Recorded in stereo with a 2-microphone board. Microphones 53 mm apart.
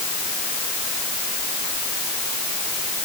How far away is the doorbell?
I don't hear a doorbell.